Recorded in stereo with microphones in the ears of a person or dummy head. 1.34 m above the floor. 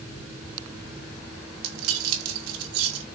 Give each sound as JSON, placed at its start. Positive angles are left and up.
{"t": 1.6, "sound": "keys jangling", "side_deg": -80, "distance_m": 3.0}